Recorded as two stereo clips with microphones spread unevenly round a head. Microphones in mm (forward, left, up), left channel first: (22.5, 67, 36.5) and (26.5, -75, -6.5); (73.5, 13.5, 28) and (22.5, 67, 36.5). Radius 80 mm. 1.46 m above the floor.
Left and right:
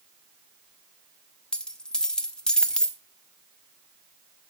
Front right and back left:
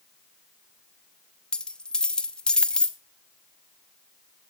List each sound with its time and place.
1.5 s a dropped coin: 35° left, 1.0 m